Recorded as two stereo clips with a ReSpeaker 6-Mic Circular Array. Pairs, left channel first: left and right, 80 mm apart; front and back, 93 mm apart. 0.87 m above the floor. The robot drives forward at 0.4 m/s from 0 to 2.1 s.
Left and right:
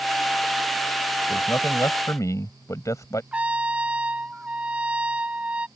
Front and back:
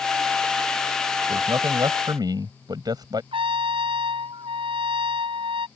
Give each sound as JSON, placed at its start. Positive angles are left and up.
{"t": 1.3, "sound": "a man speaking", "azimuth_deg": 135}
{"t": 3.3, "sound": "a trumpet", "azimuth_deg": -165}